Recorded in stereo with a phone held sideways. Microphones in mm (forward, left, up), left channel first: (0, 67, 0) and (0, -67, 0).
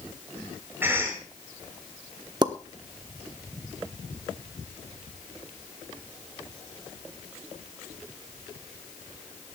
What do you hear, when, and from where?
0.8 s a cough: 15° right (ahead or behind), 5.5 m
2.4 s a pop: 30° right (ahead or behind), 1.1 m